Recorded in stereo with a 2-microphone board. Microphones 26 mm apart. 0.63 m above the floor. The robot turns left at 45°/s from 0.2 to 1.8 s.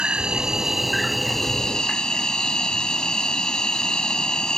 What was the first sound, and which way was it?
An insect, 140° right.